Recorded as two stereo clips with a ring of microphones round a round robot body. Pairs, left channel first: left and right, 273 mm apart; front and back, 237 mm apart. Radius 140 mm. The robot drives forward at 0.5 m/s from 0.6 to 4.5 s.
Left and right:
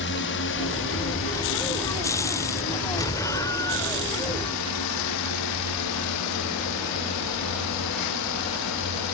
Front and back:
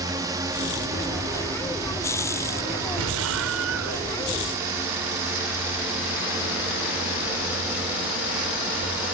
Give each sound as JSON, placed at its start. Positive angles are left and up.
{"t": 0.0, "sound": "a drone", "azimuth_deg": 110}
{"t": 3.0, "sound": "an explosion", "azimuth_deg": 170}